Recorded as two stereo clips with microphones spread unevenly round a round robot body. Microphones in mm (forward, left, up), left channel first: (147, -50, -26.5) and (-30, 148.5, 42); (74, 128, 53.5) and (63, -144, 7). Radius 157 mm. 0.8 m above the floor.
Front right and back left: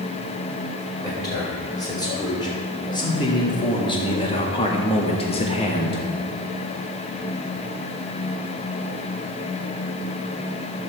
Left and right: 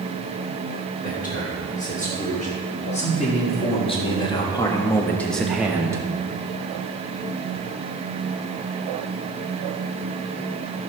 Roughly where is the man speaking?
Ahead left.